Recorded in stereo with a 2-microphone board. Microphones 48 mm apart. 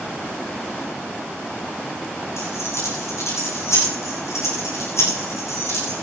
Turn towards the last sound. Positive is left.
turn(degrees=75)  # may be behind; listen again after turning